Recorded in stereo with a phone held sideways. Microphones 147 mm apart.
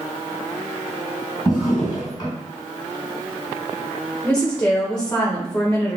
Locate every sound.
1.4 s a drawer: 25° left (ahead or behind), 1.9 m
4.2 s a woman speaking: 10° left (ahead or behind), 0.7 m